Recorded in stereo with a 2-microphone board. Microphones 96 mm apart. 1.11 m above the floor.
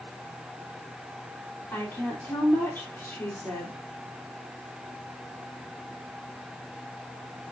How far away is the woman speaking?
About 3.5 m.